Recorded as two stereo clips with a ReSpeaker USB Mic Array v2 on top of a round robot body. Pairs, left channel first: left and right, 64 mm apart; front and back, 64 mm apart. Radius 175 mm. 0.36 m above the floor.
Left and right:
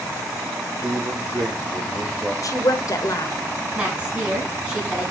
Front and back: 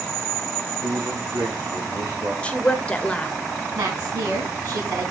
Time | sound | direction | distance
0.8 | a man speaking | 165° right | 5 m
2.4 | a woman speaking | 70° left | 1.8 m
3.8 | a woman speaking | 165° right | 5 m